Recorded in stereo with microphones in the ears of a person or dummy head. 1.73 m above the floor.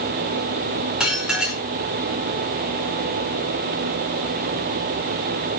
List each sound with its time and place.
1.0 s dishes clattering: centre (ahead or behind), 4.5 m